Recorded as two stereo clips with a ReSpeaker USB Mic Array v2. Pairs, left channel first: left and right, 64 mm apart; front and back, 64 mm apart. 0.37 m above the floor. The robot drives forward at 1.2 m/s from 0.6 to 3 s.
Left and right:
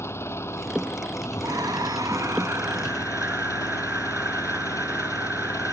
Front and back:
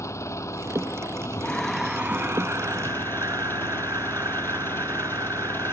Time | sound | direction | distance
0.0 | an engine running | 40° left | ?
1.4 | breathing | 70° right | ?